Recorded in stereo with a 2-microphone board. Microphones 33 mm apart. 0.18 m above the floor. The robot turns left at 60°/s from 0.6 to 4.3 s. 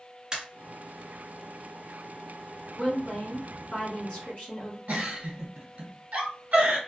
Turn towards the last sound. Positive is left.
turn(degrees=-50)  # may be behind; listen again after turning